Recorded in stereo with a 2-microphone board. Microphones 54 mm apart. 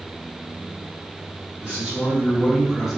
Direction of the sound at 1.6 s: 15° right (ahead or behind).